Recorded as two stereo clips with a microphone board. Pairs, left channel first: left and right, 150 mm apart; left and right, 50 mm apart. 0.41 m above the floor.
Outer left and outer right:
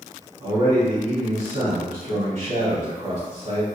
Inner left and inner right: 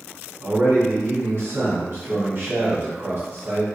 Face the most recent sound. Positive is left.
turn(degrees=-55)  # may be behind; listen again after turning